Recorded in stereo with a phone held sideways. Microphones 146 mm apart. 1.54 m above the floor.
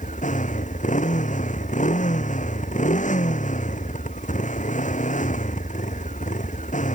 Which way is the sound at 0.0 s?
55° left (ahead or behind).